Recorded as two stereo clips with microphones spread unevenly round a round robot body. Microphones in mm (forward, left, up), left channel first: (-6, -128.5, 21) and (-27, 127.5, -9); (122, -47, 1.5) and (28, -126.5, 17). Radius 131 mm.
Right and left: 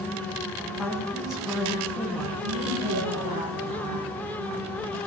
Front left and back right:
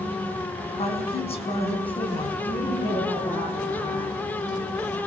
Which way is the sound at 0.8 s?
5° left.